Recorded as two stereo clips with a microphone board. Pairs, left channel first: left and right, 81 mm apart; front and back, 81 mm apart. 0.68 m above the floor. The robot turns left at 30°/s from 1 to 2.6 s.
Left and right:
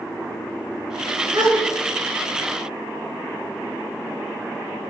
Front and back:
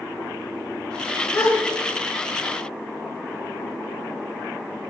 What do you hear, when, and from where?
1.3 s a gasp: 60° right, 3 m; by 1.6 s 70° right, 3 m